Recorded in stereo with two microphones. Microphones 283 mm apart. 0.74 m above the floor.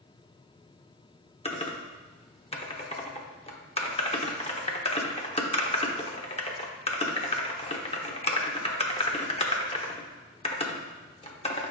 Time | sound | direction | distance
1.4 | typing on a keyboard | 20° left (ahead or behind) | 0.9 m